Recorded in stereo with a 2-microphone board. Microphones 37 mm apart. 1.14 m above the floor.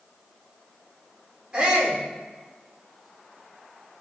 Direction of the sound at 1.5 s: 25° right (ahead or behind).